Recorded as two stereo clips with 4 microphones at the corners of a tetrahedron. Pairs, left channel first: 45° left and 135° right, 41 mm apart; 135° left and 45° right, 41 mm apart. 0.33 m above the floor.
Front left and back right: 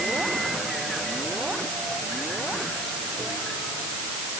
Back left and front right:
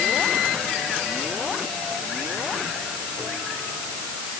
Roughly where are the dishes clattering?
No dishes clattering in this recording.